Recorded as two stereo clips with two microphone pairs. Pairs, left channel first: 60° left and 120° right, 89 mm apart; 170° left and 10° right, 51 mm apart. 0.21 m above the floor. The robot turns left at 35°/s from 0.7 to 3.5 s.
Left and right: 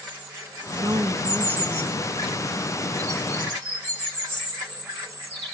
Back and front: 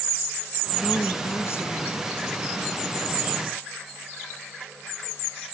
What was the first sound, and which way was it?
A woman speaking, 155° right.